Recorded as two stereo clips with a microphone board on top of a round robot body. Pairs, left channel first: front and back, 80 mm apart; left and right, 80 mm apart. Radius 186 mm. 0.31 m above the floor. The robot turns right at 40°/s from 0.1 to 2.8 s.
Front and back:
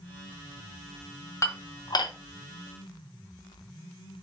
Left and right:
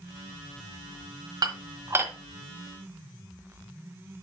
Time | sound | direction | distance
1.4 | dishes clattering | 50° right | 1.6 m